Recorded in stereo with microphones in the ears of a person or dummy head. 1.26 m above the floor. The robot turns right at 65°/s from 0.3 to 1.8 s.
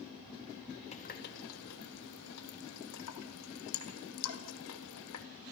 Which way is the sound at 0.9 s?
35° left (ahead or behind).